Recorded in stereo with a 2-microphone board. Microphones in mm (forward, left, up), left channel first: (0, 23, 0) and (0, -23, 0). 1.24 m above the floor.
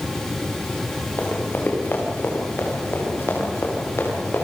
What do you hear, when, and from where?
1.2 s running footsteps: 45° left (ahead or behind), 6.5 m; by 4.4 s 65° left (ahead or behind), 9 m